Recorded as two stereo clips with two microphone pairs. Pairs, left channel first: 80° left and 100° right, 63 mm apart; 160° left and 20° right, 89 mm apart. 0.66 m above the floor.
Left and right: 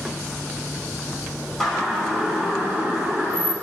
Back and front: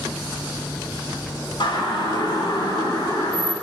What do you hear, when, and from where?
1.6 s a siren: 170° left, 5.5 m; by 3.5 s 160° right, 5.5 m